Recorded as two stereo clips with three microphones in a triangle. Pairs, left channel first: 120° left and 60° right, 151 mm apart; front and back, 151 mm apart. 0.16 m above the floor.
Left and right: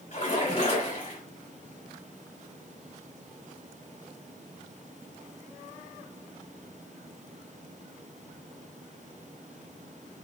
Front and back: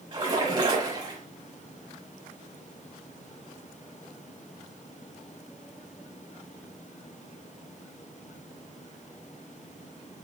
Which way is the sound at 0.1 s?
135° left.